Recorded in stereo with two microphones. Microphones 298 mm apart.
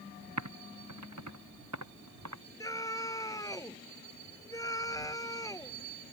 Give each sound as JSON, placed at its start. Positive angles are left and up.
{"t": 0.4, "sound": "typing on a keyboard", "side_deg": -65}
{"t": 2.6, "sound": "a scream", "side_deg": 10}